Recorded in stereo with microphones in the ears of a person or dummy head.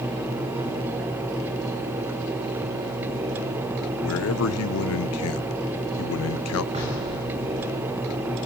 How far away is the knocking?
About 6.5 m.